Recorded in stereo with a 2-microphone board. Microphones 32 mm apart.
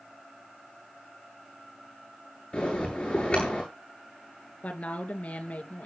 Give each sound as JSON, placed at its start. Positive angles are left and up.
{"t": 2.5, "sound": "a bell", "side_deg": 30, "distance_m": 9.5}
{"t": 4.6, "sound": "a woman speaking", "side_deg": 45, "distance_m": 2.5}